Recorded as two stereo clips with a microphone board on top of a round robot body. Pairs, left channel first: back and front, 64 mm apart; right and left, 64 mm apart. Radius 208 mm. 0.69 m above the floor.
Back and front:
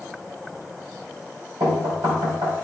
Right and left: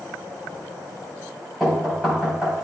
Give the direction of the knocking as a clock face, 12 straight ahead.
12 o'clock.